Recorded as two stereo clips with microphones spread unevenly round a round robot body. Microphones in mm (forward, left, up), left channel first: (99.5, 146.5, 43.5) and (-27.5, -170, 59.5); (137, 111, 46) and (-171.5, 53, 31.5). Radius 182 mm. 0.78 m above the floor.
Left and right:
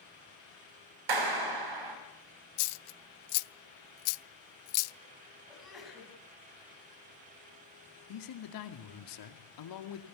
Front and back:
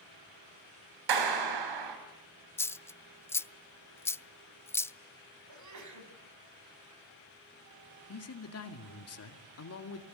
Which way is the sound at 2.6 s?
95° left.